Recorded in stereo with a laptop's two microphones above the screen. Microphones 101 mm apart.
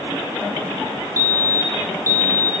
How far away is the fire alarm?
About 6 m.